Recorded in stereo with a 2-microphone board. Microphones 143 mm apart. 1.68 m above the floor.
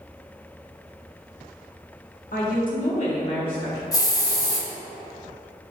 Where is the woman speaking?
65° left (ahead or behind), 1.0 m; by 3.8 s 25° left (ahead or behind), 1.9 m.